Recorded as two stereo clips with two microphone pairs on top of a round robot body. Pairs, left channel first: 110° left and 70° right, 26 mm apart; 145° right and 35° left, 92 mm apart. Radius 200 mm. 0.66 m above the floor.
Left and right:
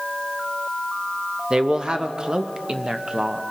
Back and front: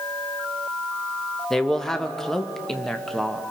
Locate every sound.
1.5 s a man speaking: 65° right, 1.2 m